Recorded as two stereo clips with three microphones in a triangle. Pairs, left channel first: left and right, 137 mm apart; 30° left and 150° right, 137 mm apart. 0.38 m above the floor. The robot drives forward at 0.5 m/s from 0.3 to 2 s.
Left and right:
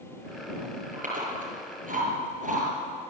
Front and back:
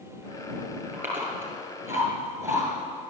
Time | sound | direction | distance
0.9 | chewing | 75° right | 6.5 m